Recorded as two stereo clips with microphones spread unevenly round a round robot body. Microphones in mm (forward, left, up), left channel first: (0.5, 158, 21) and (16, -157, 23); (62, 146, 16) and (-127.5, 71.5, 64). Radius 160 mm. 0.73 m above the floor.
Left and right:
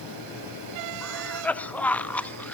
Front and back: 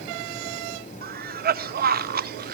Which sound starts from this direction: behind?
A cough, at 1.0 s.